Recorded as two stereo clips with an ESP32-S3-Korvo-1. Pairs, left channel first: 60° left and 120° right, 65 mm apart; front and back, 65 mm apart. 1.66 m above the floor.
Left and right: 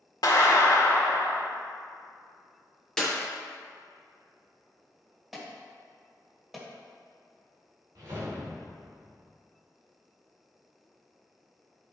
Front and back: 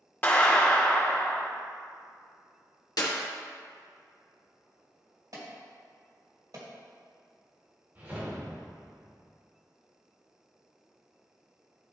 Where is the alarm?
155° left, 2 m.